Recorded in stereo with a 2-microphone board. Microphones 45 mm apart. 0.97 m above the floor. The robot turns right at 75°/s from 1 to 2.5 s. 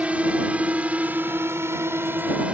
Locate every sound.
0.0 s a drone: 30° right (ahead or behind)